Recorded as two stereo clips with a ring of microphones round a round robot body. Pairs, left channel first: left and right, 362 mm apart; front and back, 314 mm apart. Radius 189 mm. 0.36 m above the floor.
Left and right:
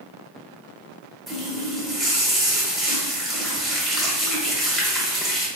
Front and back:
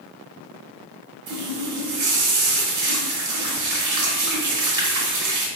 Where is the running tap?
Straight behind, 1.0 m.